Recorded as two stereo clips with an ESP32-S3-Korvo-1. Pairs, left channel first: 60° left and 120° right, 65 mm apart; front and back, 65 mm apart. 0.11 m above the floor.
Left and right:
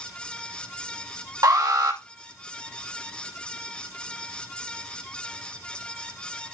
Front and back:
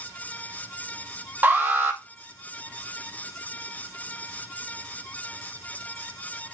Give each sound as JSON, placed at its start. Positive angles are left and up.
{"t": 1.4, "sound": "an alarm", "azimuth_deg": -120, "distance_m": 2.5}